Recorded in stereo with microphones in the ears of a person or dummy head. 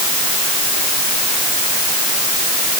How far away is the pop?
No pop in this recording.